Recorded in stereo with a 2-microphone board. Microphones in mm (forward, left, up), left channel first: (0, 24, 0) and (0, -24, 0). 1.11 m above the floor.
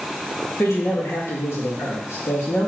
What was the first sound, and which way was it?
A man speaking, 70° left (ahead or behind).